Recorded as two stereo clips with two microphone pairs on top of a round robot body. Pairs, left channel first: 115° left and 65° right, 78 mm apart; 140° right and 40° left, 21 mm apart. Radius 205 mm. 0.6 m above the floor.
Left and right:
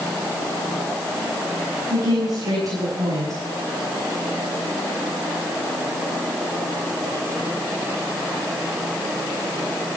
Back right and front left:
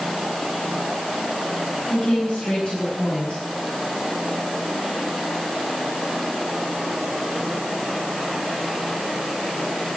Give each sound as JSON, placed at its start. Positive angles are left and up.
{"t": 1.9, "sound": "a woman speaking", "azimuth_deg": -110, "distance_m": 7.0}